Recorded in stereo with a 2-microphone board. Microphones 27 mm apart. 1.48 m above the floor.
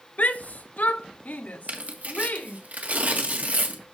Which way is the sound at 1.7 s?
65° right (ahead or behind).